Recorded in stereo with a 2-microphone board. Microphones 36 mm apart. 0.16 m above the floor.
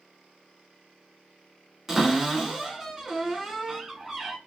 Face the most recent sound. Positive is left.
turn(degrees=-10)  # may be behind; listen again after turning